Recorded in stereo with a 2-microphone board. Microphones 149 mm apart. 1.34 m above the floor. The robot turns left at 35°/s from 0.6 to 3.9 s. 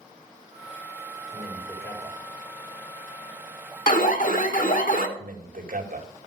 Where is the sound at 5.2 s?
75° right (ahead or behind), 2 m.